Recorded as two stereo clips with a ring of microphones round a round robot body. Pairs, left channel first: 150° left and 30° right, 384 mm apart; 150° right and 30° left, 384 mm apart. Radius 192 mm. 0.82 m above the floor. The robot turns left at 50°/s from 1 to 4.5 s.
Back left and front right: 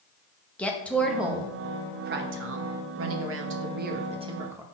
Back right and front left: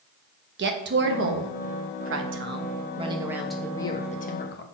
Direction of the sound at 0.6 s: 65° left.